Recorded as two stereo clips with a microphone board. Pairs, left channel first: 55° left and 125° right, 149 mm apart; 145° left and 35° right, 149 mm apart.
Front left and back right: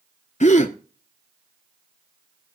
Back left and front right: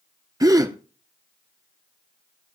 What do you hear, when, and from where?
0.4 s a gasp: 30° left, 0.8 m